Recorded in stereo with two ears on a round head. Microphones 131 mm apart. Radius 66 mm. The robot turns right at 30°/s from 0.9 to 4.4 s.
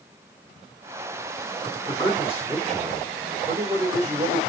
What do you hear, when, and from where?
1.9 s a man speaking: 150° left, 3 m; by 4.4 s 135° right, 3 m